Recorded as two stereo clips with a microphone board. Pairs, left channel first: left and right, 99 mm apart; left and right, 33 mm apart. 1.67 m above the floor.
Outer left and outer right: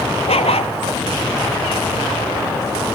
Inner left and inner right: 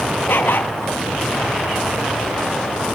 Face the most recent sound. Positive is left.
turn(degrees=80)